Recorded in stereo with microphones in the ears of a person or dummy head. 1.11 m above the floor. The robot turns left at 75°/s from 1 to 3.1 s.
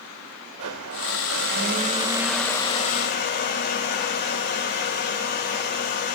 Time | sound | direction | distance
0.6 | a blender | 75° right | 2.5 m